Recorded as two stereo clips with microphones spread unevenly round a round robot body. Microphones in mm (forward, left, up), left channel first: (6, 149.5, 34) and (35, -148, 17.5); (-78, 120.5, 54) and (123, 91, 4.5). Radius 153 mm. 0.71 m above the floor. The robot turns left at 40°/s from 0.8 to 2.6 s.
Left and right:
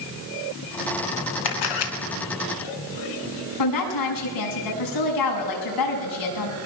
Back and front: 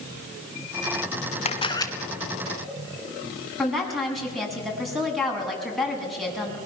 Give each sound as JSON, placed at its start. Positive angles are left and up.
{"t": 1.4, "sound": "a camera shutter", "azimuth_deg": 115, "distance_m": 2.5}
{"t": 3.6, "sound": "a woman speaking", "azimuth_deg": 80, "distance_m": 7.5}